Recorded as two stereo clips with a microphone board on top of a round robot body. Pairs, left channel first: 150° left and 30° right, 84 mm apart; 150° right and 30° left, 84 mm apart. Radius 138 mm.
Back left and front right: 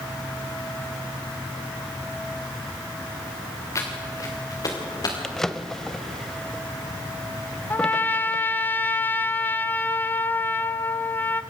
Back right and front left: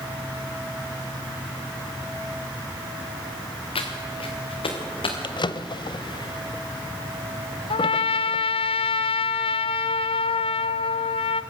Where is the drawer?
125° right, 0.9 m.